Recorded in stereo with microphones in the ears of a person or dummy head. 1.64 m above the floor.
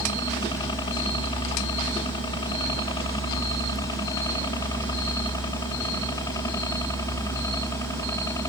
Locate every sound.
0.0 s a helicopter: 25° left (ahead or behind); by 8.5 s 15° left (ahead or behind)